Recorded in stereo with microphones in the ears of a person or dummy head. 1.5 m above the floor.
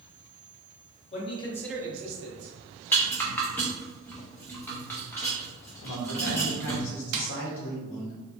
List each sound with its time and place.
1.1 s a man speaking: 40° left (ahead or behind), 1.3 m; by 2.5 s 75° right (ahead or behind), 1.1 m
2.9 s a rattle: 10° left (ahead or behind), 0.8 m
5.8 s a man speaking: 70° left (ahead or behind), 1.0 m
7.1 s tapping: 85° right, 0.8 m